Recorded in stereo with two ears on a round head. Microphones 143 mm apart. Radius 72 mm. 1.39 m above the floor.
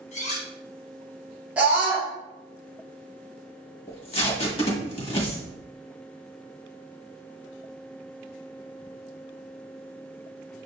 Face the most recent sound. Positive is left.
turn(degrees=35)  # may be behind; listen again after turning